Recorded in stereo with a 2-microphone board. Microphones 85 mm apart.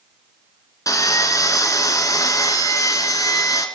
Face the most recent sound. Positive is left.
turn(degrees=40)  # may be behind; listen again after turning